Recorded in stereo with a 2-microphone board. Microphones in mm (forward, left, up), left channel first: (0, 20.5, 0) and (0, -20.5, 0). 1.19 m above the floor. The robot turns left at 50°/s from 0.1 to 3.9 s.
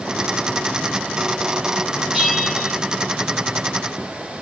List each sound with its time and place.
2.1 s a bell: 15° right, 5.5 m; by 2.8 s 50° right, 5.5 m